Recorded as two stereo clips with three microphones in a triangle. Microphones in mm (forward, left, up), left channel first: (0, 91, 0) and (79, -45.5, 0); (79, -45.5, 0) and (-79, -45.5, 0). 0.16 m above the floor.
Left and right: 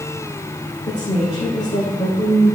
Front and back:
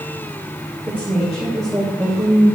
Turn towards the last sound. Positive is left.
turn(degrees=100)